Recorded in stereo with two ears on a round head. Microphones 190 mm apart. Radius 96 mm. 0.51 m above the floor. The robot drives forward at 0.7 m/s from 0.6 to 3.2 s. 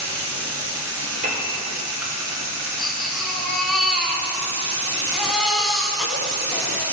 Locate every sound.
0.0 s running water: 60° right (ahead or behind), 3 m; by 7.0 s 80° right, 2.5 m
1.2 s a piano: 45° right (ahead or behind), 1.8 m; by 1.5 s 40° right (ahead or behind), 1.8 m
2.8 s a baby crying: centre (ahead or behind), 1.6 m